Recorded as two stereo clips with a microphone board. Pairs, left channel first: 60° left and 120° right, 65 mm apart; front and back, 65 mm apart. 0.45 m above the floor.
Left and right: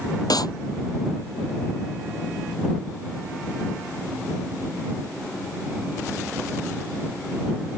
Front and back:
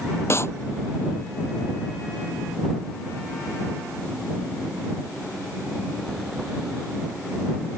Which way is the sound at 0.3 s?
50° left.